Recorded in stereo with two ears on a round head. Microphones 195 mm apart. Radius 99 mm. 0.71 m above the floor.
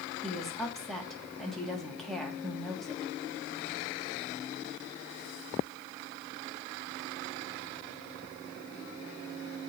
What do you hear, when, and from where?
0.2 s a woman speaking: centre (ahead or behind), 1.3 m